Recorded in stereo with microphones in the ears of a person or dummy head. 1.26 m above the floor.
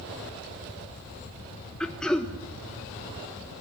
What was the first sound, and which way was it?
Throat clearing, 5° left (ahead or behind).